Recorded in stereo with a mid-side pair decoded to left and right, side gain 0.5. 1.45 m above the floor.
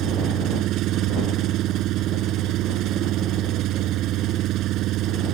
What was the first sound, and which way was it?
An engine running, 70° right.